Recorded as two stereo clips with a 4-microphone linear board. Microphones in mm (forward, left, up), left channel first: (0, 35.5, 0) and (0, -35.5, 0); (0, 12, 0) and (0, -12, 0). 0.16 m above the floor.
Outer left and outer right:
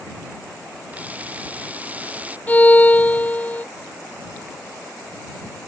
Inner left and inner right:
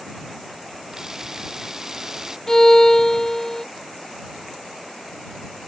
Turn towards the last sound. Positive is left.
turn(degrees=20)  # may be behind; listen again after turning